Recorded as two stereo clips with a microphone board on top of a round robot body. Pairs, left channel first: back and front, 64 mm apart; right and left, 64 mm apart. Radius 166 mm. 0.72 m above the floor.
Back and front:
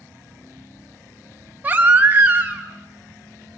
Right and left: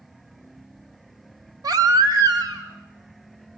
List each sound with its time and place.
1.6 s a baby crying: 70° left, 2.0 m